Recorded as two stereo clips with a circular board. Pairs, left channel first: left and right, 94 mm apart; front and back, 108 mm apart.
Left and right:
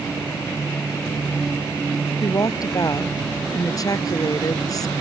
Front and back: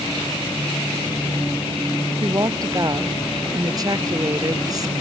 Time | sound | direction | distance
2.2 | a woman speaking | 130° left | ?